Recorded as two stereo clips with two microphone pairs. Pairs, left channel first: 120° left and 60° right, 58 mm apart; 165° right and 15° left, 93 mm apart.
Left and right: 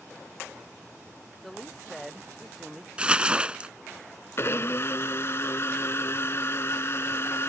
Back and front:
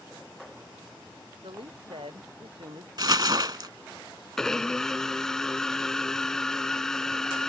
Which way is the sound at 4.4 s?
115° left.